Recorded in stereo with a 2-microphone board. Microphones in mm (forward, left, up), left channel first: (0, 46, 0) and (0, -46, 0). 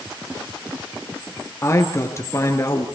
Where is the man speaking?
30° left (ahead or behind), 3 m.